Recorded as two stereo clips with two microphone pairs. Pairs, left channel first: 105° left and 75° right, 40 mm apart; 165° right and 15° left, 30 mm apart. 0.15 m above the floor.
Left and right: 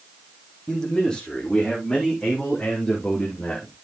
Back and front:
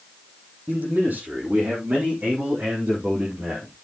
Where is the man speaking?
35° left, 5 m; by 3.7 s 45° left, 3.5 m.